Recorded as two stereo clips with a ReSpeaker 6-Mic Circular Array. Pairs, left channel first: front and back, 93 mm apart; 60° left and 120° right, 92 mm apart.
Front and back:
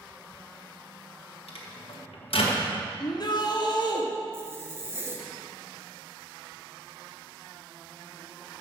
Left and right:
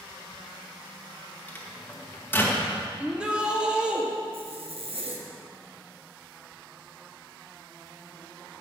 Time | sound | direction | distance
1.5 | a microwave | 10° right | 1.5 m
3.0 | a shout | 40° right | 1.4 m
4.3 | a zipper | 115° right | 1.2 m